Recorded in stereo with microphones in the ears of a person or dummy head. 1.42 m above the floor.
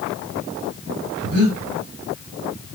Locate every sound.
1.2 s breathing: 50° right (ahead or behind), 2.5 m